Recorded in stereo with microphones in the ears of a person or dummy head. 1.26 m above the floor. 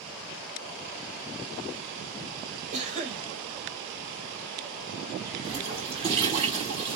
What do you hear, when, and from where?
2.7 s a cough: 35° right (ahead or behind), 0.9 m
5.4 s a toilet flushing: 35° right (ahead or behind), 1.7 m